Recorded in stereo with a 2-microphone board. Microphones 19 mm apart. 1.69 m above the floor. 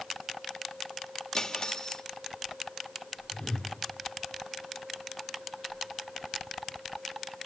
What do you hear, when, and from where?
1.3 s cutlery clinking: 40° left (ahead or behind), 1.5 m
3.3 s a whoosh: 60° left (ahead or behind), 3 m